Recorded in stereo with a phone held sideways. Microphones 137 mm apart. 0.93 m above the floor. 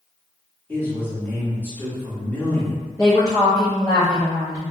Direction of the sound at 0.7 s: 15° left (ahead or behind).